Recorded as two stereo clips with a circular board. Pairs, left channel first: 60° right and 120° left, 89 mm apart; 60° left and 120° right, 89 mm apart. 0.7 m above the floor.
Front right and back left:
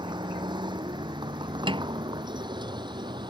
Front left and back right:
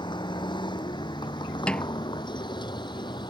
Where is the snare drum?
140° left.